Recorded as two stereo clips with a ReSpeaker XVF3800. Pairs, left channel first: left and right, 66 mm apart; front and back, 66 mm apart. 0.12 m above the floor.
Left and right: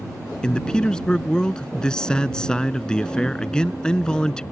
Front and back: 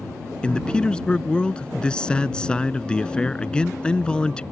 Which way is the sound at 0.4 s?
40° left.